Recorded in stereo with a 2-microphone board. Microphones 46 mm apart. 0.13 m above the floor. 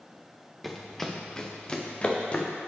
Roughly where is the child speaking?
No child speaking in this recording.